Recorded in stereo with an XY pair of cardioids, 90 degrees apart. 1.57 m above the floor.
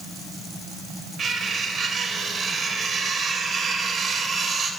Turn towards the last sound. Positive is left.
turn(degrees=-65)